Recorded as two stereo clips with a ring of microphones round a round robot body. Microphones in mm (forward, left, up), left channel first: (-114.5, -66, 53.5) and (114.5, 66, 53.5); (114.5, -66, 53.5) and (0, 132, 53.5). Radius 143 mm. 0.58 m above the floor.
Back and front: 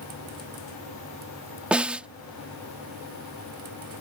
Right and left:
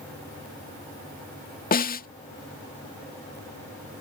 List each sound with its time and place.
1.7 s a snare drum: 55° right